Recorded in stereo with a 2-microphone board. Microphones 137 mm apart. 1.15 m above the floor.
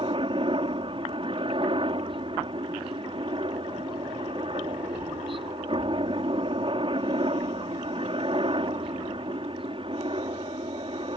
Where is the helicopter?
45° right (ahead or behind).